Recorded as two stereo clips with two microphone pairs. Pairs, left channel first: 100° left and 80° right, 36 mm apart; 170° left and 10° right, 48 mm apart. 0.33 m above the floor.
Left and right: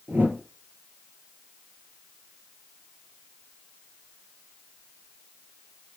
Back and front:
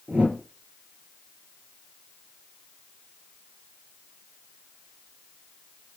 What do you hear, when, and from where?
0.1 s a whoosh: 70° right, 5 m